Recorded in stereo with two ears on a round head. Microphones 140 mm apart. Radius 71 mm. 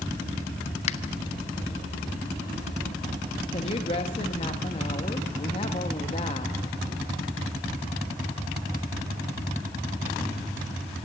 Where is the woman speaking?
35° left (ahead or behind), 1.2 m.